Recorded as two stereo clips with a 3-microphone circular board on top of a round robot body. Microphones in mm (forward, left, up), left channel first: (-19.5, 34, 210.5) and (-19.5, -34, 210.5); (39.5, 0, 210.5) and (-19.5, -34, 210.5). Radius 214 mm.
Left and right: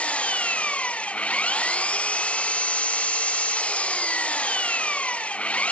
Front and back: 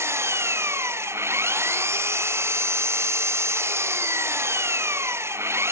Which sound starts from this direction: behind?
An engine running, at 0.0 s.